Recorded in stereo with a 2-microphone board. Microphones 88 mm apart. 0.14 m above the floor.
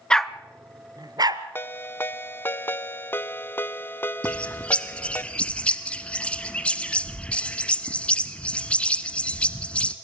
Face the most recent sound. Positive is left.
turn(degrees=15)  # may be behind; listen again after turning